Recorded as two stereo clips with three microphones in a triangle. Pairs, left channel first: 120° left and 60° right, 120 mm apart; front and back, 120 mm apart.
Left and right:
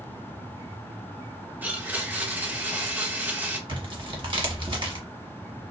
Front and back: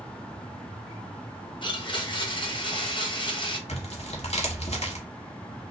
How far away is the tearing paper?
About 0.8 m.